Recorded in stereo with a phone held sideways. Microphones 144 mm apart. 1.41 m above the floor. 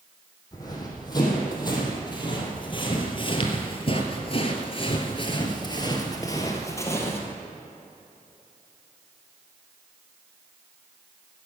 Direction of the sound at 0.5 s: 25° left (ahead or behind).